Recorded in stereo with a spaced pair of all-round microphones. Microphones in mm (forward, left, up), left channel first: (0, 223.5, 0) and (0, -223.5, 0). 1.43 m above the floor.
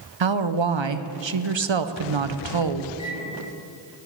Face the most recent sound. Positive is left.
turn(degrees=-30)  # may be behind; listen again after turning